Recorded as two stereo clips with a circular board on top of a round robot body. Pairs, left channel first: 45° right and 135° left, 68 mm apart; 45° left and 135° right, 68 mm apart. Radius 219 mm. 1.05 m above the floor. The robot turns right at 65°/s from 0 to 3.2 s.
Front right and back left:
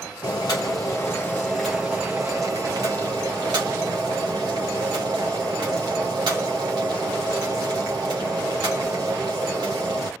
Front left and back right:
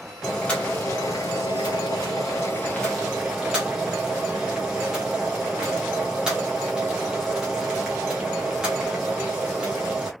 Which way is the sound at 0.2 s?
45° right.